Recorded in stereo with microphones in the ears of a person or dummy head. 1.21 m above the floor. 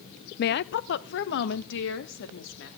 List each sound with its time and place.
0.4 s a woman speaking: 45° left (ahead or behind), 0.5 m; by 2.7 s 60° left (ahead or behind), 3 m